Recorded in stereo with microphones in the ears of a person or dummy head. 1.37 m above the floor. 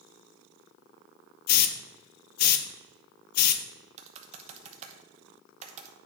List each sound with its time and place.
1.5 s a hiss: 50° left (ahead or behind), 0.6 m
4.0 s typing on a keyboard: 40° right (ahead or behind), 1.0 m